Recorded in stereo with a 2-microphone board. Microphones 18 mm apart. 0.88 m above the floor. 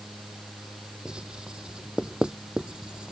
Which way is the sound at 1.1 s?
60° right (ahead or behind).